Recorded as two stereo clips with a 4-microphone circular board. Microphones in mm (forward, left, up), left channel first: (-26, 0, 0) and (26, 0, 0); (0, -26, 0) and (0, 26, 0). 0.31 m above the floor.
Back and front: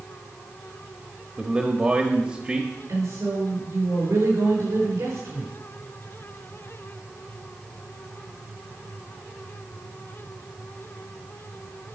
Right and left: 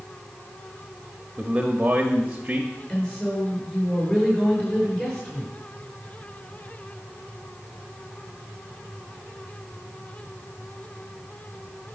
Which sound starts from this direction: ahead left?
A man speaking, at 1.4 s.